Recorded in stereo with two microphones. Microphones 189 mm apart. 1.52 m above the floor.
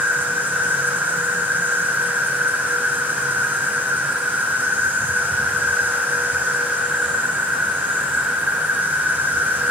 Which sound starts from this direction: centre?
An insect, at 0.0 s.